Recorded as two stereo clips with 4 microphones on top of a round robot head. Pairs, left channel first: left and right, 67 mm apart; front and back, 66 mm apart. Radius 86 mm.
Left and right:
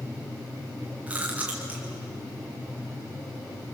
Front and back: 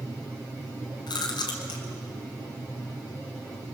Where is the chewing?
15° right, 2.5 m.